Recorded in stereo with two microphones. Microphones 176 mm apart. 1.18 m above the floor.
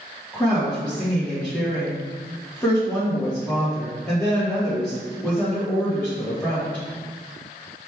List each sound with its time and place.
0.3 s a woman speaking: 10° left (ahead or behind), 1.3 m